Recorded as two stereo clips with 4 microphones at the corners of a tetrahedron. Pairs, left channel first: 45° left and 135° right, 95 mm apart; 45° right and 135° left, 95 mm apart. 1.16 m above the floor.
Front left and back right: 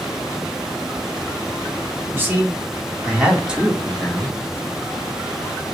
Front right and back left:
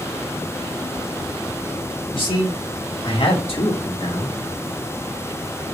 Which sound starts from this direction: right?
A man speaking, at 2.1 s.